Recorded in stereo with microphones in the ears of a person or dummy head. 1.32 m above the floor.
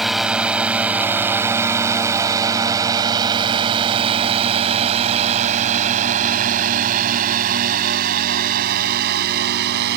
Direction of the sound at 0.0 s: Centre (ahead or behind).